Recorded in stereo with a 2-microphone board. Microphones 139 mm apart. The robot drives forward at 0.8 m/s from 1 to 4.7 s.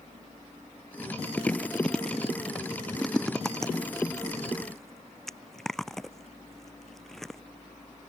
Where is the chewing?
10° left (ahead or behind); by 7.4 s centre (ahead or behind).